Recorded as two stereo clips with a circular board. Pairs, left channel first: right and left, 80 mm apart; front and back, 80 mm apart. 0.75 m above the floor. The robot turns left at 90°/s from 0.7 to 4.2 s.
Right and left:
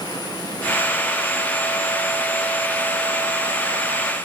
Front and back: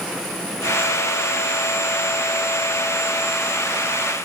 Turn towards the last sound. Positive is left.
No sound to turn to.